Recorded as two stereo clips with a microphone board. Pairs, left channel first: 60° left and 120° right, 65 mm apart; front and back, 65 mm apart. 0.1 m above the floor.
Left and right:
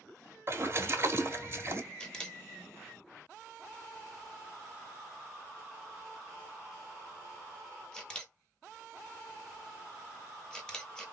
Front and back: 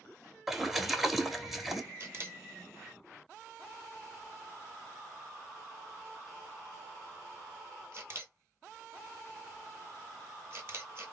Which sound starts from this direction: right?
A splash, at 0.5 s.